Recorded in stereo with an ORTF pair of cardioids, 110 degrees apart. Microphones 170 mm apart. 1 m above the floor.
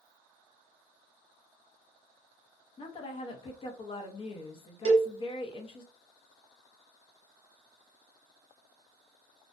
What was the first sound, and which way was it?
A woman speaking, 35° left.